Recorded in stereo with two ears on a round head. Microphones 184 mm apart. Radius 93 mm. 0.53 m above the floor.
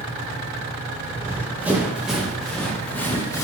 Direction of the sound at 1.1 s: 15° right (ahead or behind).